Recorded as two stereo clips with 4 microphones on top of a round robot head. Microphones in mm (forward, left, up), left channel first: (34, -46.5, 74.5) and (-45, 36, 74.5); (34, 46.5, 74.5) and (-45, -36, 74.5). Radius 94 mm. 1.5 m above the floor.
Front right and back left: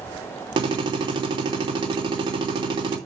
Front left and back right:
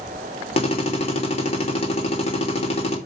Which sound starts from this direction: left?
A drill, at 0.6 s.